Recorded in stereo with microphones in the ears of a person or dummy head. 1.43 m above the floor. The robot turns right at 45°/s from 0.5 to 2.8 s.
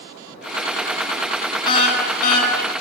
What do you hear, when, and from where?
1.6 s a car horn: 30° left, 8.5 m; by 2.5 s 70° left, 8.5 m